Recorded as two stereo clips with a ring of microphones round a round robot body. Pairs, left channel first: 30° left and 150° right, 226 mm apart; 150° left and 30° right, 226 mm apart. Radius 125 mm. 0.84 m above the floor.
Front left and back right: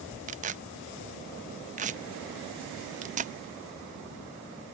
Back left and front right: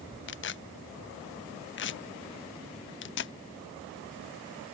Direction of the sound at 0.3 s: 160° left.